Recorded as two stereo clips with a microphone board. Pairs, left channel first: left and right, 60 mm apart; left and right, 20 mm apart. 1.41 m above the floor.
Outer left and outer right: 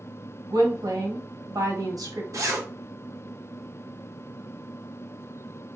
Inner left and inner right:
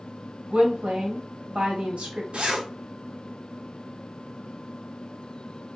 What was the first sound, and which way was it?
A woman speaking, 80° right.